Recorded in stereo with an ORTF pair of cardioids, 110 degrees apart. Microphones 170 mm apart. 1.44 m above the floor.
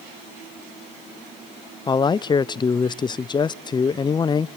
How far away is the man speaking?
About 0.5 m.